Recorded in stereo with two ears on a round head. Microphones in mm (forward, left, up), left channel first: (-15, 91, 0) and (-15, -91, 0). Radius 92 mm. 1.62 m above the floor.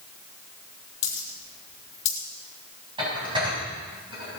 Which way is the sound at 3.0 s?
25° right (ahead or behind).